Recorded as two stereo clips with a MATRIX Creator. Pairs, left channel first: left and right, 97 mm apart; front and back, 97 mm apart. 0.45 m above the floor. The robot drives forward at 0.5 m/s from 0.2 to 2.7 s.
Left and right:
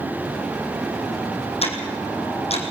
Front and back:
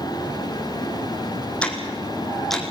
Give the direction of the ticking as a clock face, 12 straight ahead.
9 o'clock.